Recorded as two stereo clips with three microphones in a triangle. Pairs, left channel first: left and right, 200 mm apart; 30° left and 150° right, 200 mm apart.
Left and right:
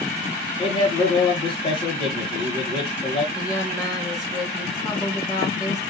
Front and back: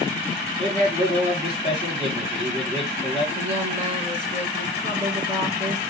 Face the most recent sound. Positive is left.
turn(degrees=160)